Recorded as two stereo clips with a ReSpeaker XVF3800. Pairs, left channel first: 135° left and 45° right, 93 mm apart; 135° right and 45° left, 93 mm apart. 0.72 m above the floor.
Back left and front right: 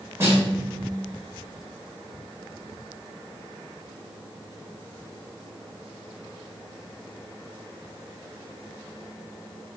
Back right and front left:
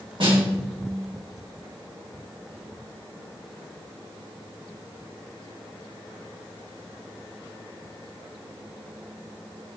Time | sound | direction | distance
0.2 | a snare drum | 15° left | 2.5 m